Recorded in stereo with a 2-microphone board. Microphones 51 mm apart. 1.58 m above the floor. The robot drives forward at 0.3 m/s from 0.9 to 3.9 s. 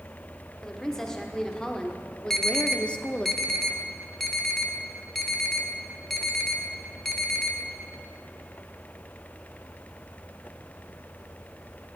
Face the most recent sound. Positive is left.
turn(degrees=5)  # may be behind; listen again after turning